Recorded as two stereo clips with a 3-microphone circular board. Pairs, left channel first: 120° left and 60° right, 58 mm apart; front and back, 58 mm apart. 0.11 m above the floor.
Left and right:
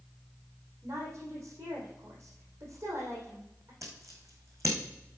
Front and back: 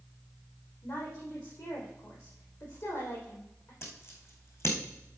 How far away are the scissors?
About 3.5 m.